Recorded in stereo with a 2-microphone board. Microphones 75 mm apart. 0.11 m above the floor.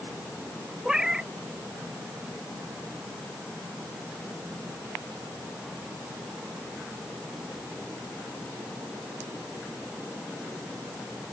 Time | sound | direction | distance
0.8 | a cat meowing | 10° right (ahead or behind) | ?